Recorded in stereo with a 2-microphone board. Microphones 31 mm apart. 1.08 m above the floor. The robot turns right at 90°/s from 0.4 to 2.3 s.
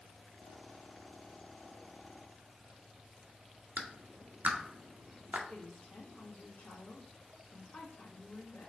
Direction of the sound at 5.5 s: 75° left (ahead or behind).